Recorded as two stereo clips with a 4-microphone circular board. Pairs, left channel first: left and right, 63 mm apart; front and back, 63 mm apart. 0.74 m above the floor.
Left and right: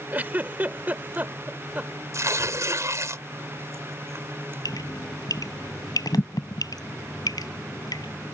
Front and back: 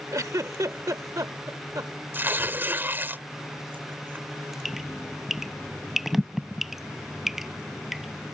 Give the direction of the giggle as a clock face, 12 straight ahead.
5 o'clock.